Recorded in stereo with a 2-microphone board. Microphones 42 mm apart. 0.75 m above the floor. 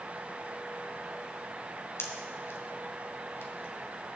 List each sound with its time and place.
2.0 s a pop: 80° left, 2.5 m